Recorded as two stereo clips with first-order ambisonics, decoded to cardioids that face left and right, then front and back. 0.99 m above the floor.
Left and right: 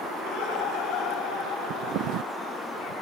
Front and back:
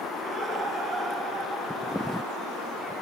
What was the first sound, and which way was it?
Laughter, 100° left.